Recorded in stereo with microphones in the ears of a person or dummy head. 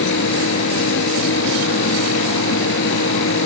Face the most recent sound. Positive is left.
turn(degrees=75)  # may be behind; listen again after turning